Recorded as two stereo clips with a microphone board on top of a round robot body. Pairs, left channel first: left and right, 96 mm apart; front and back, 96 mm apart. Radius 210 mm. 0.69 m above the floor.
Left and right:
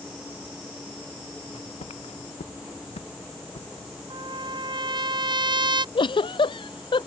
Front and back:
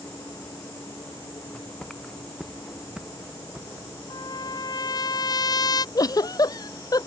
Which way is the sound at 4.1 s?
50° right.